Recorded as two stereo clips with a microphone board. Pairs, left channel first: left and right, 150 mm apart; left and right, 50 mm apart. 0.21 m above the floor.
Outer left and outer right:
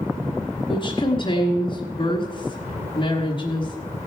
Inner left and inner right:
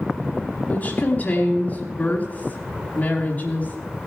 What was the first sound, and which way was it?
A woman speaking, 35° left (ahead or behind).